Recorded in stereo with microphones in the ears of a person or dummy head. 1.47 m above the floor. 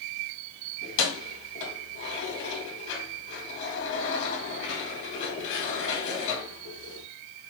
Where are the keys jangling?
55° left (ahead or behind), 1.5 m.